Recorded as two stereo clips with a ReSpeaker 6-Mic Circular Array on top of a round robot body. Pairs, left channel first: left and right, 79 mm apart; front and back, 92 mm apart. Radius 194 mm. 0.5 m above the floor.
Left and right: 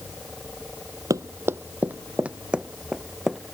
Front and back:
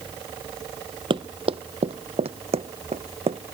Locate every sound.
1.1 s running footsteps: 140° right; by 3.4 s 175° right